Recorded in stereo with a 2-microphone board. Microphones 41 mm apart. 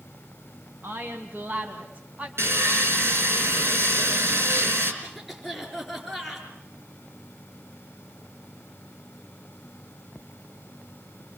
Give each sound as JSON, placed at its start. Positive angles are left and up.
{"t": 0.8, "sound": "a woman speaking", "side_deg": -60, "distance_m": 3.5}
{"t": 2.4, "sound": "sawing", "side_deg": -80, "distance_m": 5.5}
{"t": 5.0, "sound": "a cough", "side_deg": -5, "distance_m": 5.0}